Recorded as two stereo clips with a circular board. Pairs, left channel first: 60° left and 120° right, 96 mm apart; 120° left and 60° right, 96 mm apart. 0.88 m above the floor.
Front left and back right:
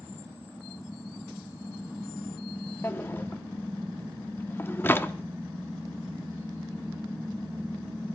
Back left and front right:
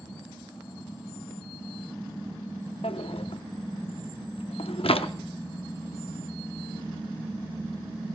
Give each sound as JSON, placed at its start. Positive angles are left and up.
{"t": 2.8, "sound": "a drawer", "azimuth_deg": 125, "distance_m": 0.7}